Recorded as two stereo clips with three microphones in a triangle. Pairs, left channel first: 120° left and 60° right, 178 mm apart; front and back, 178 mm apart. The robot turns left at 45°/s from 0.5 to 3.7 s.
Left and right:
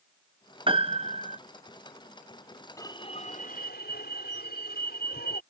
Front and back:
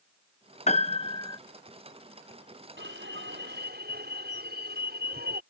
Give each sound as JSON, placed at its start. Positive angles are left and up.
{"t": 0.7, "sound": "a piano", "azimuth_deg": -20}
{"t": 2.8, "sound": "an alarm", "azimuth_deg": -170}